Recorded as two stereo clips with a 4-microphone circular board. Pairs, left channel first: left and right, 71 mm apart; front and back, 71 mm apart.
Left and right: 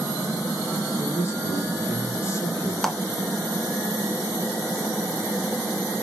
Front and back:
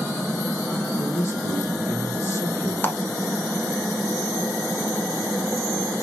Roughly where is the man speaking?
Ahead left.